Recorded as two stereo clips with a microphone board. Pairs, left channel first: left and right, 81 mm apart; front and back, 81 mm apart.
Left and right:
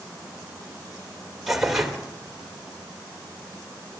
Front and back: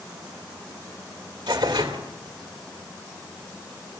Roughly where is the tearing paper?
Behind.